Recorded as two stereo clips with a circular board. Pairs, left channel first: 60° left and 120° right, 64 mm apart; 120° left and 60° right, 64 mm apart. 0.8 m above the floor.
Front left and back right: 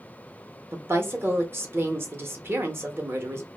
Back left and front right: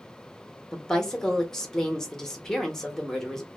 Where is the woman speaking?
160° right, 0.7 m.